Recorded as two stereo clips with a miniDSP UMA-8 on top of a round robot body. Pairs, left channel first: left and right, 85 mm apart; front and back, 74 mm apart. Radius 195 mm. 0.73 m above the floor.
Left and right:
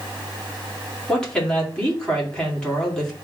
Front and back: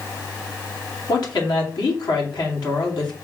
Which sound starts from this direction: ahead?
A woman speaking, at 1.1 s.